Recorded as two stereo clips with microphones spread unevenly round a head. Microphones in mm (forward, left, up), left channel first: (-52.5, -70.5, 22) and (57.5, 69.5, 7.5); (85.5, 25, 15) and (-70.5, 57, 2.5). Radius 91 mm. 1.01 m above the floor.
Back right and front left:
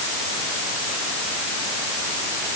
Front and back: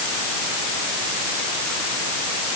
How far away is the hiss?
I don't hear a hiss.